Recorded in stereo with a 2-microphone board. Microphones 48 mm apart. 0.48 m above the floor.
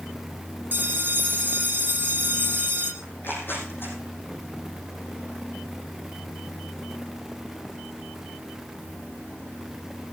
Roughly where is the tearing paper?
Left.